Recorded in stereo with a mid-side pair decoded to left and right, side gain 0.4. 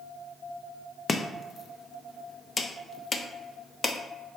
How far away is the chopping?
About 0.5 m.